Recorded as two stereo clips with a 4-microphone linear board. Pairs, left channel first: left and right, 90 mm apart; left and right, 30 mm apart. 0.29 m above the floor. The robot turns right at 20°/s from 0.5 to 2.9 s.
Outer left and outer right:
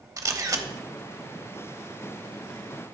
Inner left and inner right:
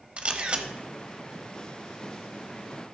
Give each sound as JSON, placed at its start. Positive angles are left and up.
{"t": 0.2, "sound": "a camera shutter", "side_deg": -40, "distance_m": 0.8}